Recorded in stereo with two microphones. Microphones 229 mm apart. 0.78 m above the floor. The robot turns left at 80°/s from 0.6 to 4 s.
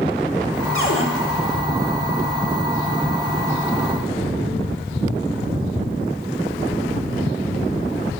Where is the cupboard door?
70° left (ahead or behind), 1.5 m; by 1.1 s 85° left, 1.5 m.